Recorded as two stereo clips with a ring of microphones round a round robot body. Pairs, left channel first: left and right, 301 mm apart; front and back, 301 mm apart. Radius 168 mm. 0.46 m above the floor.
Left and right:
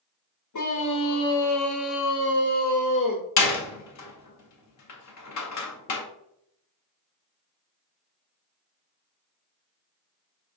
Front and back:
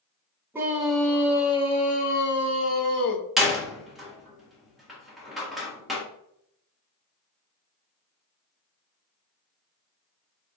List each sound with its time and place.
0.5 s a scream: 100° left, 1.6 m; by 3.2 s 20° left, 1.4 m
3.4 s a door slam: 90° left, 1.3 m